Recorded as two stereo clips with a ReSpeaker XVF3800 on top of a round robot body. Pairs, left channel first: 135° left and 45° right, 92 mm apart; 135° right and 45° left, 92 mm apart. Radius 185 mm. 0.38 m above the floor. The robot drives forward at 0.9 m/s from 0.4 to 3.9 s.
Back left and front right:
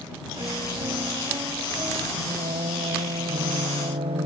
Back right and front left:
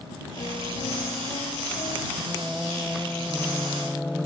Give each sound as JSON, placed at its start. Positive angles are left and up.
{"t": 0.4, "sound": "a piano", "azimuth_deg": -95}
{"t": 2.2, "sound": "singing", "azimuth_deg": -50}